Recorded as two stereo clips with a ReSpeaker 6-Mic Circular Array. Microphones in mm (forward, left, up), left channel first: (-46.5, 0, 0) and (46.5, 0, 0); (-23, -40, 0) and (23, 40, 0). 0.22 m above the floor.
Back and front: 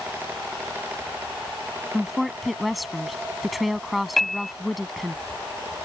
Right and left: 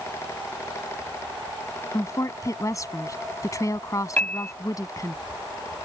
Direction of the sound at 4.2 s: 95° right.